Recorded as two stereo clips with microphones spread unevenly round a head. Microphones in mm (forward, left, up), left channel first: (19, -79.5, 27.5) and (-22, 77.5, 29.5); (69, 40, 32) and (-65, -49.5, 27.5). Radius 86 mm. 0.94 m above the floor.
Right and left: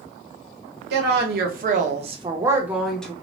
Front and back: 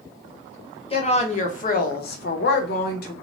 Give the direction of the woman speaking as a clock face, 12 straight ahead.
9 o'clock.